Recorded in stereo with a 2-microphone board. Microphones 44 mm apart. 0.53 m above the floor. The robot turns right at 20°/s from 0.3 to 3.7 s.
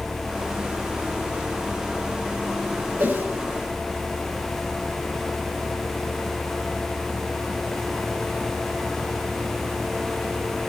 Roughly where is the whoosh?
Right.